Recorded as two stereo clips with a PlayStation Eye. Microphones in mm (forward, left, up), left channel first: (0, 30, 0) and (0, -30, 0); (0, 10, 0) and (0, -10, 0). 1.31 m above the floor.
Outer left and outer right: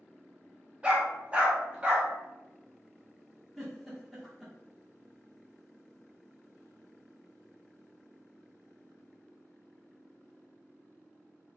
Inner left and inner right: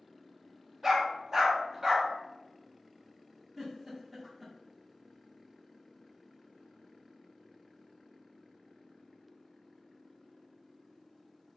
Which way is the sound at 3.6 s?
Centre (ahead or behind).